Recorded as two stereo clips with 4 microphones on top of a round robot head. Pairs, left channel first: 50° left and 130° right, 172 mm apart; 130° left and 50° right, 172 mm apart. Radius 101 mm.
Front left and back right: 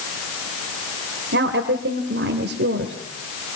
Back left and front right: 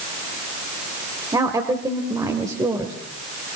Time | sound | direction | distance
1.3 | a woman speaking | 120° right | 2 m